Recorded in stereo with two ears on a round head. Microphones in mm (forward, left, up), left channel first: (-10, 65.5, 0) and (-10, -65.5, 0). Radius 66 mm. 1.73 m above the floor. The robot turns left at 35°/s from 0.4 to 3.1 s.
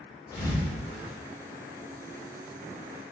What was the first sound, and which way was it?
A thud, 30° left (ahead or behind).